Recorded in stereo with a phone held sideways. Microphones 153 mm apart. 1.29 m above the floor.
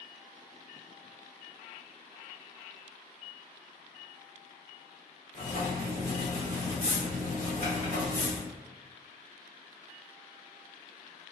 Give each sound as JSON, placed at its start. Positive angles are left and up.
{"t": 5.3, "sound": "writing", "side_deg": 55, "distance_m": 1.7}